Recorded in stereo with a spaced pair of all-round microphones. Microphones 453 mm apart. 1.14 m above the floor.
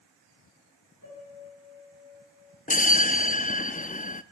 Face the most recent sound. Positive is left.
turn(degrees=20)  # may be behind; listen again after turning